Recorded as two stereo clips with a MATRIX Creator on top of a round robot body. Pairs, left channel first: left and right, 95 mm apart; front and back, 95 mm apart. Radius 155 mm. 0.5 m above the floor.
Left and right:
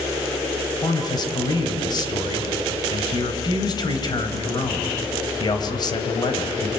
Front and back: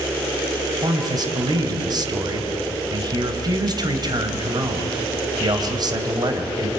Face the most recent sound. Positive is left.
turn(degrees=135)